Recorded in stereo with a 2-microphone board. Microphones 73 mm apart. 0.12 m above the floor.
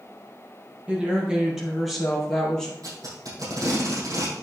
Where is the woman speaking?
20° right (ahead or behind), 4 m; by 2.7 s 10° left (ahead or behind), 4 m.